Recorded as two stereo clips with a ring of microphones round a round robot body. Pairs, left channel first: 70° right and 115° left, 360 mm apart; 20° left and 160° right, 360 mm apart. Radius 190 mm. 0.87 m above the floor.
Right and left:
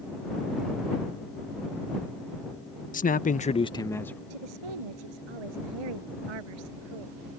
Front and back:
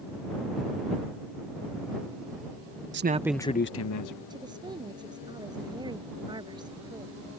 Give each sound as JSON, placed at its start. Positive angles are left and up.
{"t": 2.9, "sound": "a man speaking", "azimuth_deg": -120}
{"t": 4.3, "sound": "a woman speaking", "azimuth_deg": 125}